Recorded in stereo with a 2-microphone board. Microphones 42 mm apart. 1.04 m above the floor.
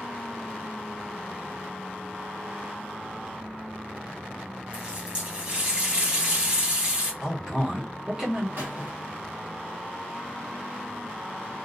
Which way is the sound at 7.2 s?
15° right (ahead or behind).